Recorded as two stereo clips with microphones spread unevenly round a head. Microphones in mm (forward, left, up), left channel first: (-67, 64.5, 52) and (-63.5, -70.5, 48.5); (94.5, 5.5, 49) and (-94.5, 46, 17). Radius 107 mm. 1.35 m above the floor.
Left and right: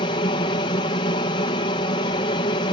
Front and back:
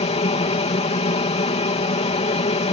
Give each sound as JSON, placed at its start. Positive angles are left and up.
{"t": 0.0, "sound": "an aircraft", "azimuth_deg": 40}